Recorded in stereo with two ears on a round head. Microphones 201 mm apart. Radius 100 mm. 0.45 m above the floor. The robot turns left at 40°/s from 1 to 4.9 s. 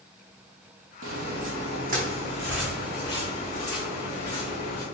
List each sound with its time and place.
1.0 s footsteps: 60° right (ahead or behind), 0.9 m; by 4.8 s 85° left, 4.5 m